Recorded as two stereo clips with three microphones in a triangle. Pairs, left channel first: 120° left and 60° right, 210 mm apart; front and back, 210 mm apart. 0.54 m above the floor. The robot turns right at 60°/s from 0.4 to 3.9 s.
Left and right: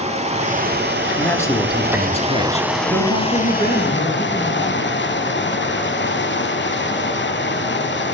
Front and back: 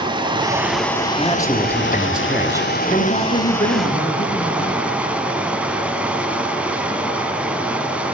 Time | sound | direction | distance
0.0 | running water | 115° right | 0.7 m
1.2 | a man speaking | 40° left | 1.0 m
2.8 | a woman speaking | 60° right | 3.5 m